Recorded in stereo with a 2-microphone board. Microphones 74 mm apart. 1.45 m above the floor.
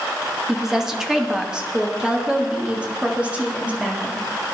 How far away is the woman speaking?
About 2 m.